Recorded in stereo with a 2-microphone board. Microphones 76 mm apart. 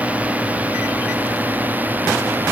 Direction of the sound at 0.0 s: 20° right (ahead or behind).